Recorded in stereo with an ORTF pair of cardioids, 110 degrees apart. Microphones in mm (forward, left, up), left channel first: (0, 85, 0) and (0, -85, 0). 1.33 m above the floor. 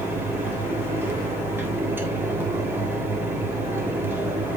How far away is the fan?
About 3 m.